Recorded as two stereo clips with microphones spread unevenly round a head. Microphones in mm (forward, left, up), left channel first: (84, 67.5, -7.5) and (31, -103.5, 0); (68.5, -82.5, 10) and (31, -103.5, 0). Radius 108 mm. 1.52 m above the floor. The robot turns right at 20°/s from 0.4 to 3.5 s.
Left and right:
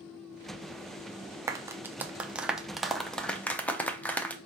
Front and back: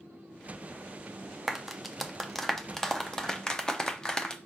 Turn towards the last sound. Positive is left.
turn(degrees=-5)